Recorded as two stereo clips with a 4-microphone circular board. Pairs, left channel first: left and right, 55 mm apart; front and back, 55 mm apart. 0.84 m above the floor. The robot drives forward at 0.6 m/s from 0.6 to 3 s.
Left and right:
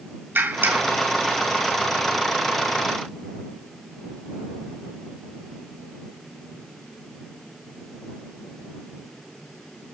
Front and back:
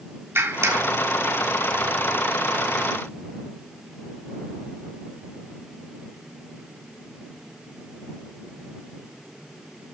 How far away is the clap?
About 1.7 m.